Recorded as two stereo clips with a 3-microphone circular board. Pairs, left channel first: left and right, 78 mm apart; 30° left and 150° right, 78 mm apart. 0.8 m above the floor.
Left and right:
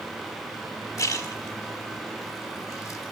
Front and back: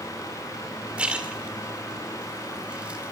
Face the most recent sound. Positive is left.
turn(degrees=135)